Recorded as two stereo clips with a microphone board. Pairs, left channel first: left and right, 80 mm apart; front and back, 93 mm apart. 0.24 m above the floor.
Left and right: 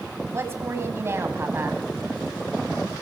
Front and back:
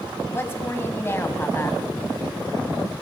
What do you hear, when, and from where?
0.3 s a woman speaking: 50° right, 1.8 m